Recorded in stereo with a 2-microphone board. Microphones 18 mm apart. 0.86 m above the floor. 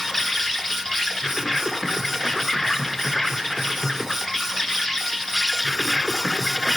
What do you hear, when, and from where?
0.0 s an insect: 15° left (ahead or behind), 1.4 m